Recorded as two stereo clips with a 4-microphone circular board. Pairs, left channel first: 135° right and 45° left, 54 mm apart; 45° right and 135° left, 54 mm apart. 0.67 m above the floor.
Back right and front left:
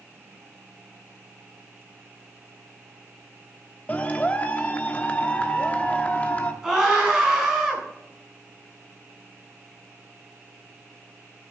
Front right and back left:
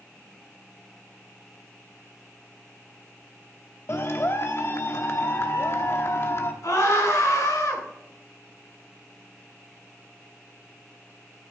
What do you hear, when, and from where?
3.9 s a clap: 75° right, 1.0 m
6.6 s a scream: 35° right, 5 m